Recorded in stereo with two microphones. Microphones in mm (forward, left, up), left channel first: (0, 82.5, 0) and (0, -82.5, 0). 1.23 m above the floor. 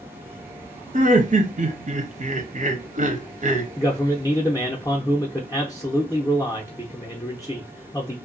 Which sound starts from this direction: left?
A man speaking, at 3.8 s.